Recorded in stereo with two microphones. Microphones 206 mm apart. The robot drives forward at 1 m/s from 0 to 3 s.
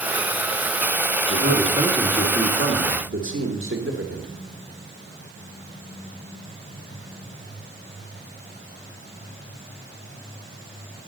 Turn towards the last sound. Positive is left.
turn(degrees=-70)  # may be behind; listen again after turning